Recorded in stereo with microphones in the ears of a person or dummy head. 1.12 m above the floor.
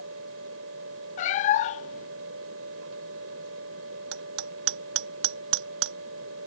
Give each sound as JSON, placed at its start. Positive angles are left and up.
{"t": 0.0, "sound": "a fan", "side_deg": -70}
{"t": 1.2, "sound": "a cat meowing", "side_deg": 30}
{"t": 4.1, "sound": "hammering", "side_deg": -70}